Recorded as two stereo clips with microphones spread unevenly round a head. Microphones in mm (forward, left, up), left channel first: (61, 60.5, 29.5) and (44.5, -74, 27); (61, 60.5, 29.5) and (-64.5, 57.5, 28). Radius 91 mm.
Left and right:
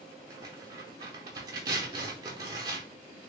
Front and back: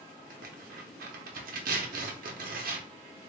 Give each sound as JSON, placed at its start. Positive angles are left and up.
{"t": 0.3, "sound": "tearing paper", "azimuth_deg": -170, "distance_m": 0.7}